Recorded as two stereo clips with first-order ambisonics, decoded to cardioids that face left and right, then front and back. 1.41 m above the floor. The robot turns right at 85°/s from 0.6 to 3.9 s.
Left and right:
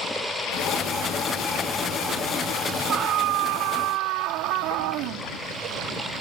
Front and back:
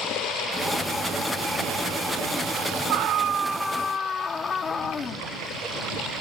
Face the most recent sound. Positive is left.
turn(degrees=-70)